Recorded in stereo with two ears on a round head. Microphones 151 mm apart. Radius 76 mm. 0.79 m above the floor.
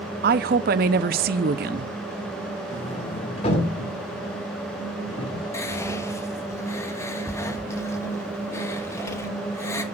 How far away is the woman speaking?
About 0.7 m.